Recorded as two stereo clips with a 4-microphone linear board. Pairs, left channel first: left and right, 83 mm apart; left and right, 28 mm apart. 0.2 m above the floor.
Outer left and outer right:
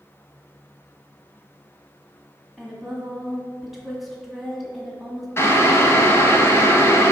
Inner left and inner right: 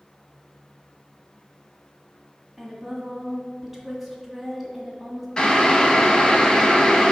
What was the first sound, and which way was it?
A woman speaking, centre (ahead or behind).